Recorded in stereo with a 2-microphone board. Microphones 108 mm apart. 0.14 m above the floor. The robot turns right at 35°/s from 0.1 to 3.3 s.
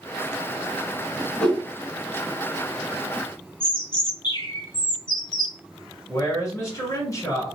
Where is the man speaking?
30° left (ahead or behind), 1.4 m.